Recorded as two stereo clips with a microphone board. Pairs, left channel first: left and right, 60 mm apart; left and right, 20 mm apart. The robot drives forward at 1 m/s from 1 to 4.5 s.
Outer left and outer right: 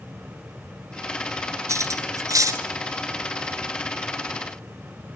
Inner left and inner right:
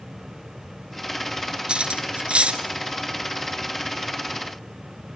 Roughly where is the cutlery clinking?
Right.